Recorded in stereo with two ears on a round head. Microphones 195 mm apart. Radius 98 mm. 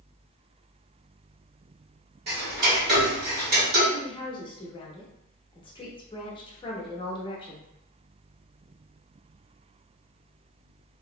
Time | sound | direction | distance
2.3 | ticking | 50° right (ahead or behind) | 1.5 m
3.9 | a woman speaking | 25° left (ahead or behind) | 0.8 m